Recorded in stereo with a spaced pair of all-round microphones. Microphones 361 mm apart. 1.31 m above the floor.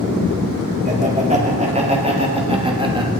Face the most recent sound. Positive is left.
turn(degrees=-10)  # may be behind; listen again after turning